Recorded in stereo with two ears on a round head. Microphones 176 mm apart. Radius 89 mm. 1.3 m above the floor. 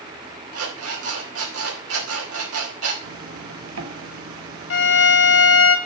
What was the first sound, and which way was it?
An alarm clock, 85° right.